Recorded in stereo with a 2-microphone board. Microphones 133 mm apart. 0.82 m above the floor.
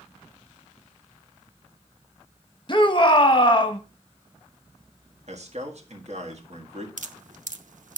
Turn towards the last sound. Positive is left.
turn(degrees=-70)  # may be behind; listen again after turning